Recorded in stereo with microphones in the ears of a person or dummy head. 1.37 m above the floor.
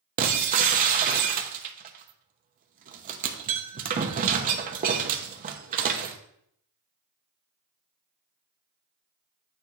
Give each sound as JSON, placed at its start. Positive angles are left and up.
{"t": 0.2, "sound": "breaking glass", "side_deg": -40, "distance_m": 0.9}